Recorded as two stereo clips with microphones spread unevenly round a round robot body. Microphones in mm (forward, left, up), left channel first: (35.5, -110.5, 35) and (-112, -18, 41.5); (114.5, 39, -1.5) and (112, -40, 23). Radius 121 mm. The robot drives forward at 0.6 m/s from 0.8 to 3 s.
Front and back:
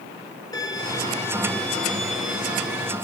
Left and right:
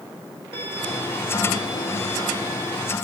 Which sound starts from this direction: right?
A violin, at 0.5 s.